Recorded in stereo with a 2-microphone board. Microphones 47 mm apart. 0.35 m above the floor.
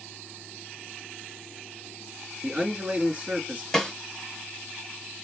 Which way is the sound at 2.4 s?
30° right (ahead or behind).